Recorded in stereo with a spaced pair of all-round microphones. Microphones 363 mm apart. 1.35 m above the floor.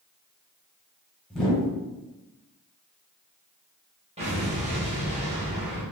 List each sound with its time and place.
1.3 s a whoosh: centre (ahead or behind), 1.1 m
4.2 s an explosion: 20° right (ahead or behind), 1.1 m